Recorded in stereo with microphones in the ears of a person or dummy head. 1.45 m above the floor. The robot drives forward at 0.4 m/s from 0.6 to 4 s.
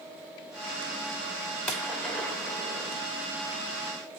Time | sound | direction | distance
1.7 | a gunshot | 5° left (ahead or behind) | 1.4 m